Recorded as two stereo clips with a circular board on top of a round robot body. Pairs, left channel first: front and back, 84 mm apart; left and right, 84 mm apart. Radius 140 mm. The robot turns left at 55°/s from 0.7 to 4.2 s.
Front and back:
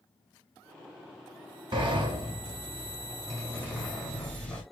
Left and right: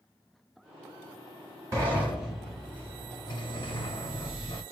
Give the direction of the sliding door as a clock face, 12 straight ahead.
5 o'clock.